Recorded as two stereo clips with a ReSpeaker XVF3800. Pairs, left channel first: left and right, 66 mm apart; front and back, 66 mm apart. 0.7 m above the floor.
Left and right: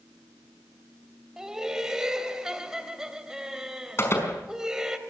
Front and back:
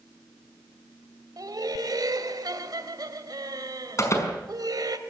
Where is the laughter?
170° right, 2.5 m.